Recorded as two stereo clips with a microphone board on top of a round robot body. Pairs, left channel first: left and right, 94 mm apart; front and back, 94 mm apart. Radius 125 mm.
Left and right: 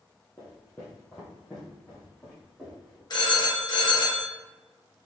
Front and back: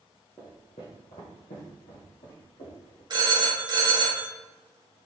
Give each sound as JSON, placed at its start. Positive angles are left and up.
{"t": 0.4, "sound": "footsteps", "azimuth_deg": 40, "distance_m": 0.9}
{"t": 3.1, "sound": "a phone ringing", "azimuth_deg": 135, "distance_m": 1.1}